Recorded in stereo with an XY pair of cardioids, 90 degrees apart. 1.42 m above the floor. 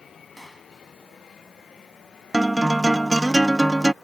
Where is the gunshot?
10° right.